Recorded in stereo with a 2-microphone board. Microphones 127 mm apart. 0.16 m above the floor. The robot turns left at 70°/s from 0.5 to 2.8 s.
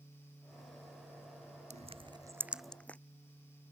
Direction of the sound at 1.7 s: 65° right (ahead or behind).